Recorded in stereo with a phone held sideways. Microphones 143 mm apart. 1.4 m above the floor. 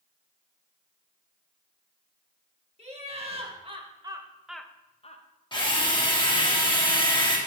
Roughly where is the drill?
Left.